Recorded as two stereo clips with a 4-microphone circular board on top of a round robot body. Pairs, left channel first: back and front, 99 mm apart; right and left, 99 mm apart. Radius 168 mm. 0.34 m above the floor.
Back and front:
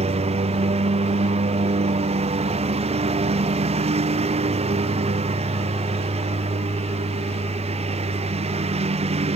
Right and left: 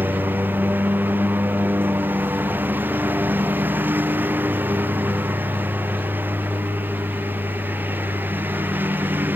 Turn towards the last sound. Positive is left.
turn(degrees=15)